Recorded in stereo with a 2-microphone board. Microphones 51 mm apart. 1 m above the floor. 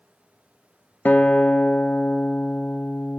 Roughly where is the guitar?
Left.